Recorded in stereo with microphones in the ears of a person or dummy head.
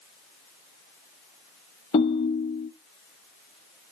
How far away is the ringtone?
About 0.7 m.